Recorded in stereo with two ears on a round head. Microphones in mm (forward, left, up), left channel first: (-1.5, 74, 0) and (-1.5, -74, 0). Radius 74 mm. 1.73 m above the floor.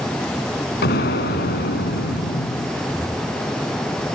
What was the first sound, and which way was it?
An explosion, 65° left (ahead or behind).